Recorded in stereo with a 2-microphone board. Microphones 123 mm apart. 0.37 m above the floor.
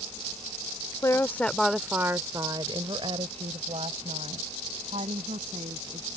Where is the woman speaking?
25° left (ahead or behind); by 6.2 s 75° right (ahead or behind).